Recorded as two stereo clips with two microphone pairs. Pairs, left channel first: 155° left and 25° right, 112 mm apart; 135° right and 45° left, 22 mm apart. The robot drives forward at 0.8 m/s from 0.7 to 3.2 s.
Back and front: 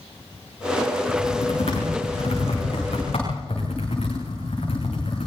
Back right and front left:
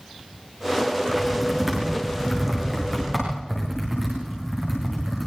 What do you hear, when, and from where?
1.1 s typing on a keyboard: 120° left, 7.5 m; by 5.3 s 130° left, 8.5 m